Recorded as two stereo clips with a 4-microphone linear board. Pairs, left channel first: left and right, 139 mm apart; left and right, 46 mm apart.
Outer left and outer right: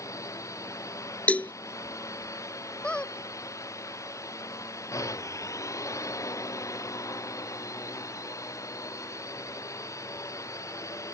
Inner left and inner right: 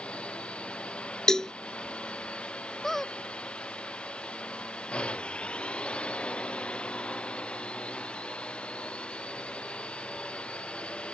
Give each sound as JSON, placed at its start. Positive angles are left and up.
{"t": 0.0, "sound": "a drone", "side_deg": 25}
{"t": 1.3, "sound": "a cowbell", "side_deg": 10}
{"t": 2.8, "sound": "a squeak", "side_deg": 5}